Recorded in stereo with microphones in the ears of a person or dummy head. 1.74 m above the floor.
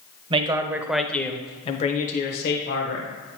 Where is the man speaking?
25° right (ahead or behind), 0.7 m; by 3.1 s 65° left (ahead or behind), 1.2 m.